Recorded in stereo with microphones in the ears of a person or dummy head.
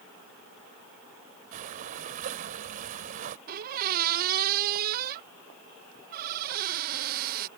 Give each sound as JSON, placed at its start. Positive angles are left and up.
{"t": 1.5, "sound": "breathing", "side_deg": -40}
{"t": 3.5, "sound": "a squeak", "side_deg": -50}